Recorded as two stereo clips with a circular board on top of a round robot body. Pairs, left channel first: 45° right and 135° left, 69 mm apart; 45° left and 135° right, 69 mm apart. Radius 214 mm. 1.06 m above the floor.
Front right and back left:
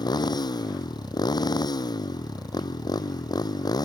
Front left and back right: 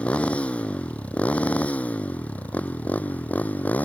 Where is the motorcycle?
25° right; by 3.9 s 20° right.